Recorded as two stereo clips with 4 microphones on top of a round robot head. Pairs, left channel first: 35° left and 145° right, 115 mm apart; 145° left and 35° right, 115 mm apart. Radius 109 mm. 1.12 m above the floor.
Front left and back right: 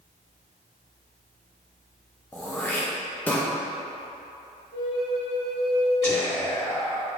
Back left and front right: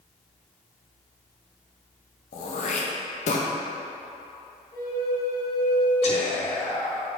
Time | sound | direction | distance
2.3 | throat clearing | 115° left | 0.6 m
4.7 | a flute | 85° left | 1.4 m
6.0 | whispering | 105° left | 1.8 m